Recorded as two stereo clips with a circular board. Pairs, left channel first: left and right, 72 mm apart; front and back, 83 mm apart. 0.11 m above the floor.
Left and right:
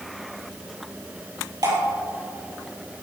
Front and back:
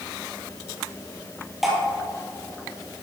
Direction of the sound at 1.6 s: 95° right.